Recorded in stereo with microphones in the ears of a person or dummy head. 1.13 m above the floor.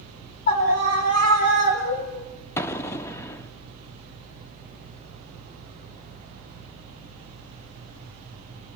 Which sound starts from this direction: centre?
An explosion, at 2.6 s.